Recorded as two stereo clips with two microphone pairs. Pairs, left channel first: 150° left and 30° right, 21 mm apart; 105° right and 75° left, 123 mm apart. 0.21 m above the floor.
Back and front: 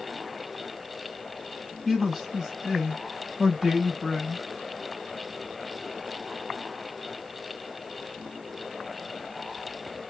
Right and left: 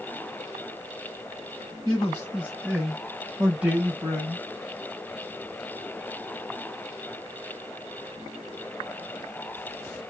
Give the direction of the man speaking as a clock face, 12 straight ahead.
4 o'clock.